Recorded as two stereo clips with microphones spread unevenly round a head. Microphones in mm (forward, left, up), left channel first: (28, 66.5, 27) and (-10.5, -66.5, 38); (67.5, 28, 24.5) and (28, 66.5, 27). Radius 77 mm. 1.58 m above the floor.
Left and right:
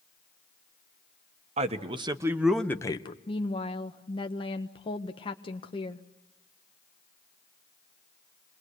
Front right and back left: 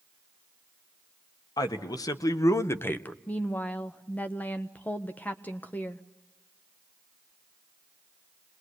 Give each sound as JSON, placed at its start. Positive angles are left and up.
{"t": 1.6, "sound": "a man speaking", "azimuth_deg": -60, "distance_m": 1.7}
{"t": 3.3, "sound": "a woman speaking", "azimuth_deg": 20, "distance_m": 1.0}